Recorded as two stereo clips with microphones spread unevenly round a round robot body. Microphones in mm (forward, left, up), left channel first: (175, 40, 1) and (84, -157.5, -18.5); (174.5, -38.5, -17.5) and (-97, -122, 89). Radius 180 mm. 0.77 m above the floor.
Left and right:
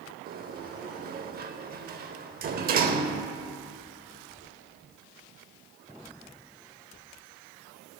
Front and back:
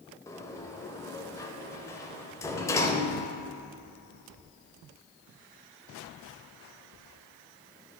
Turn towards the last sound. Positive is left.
turn(degrees=-85)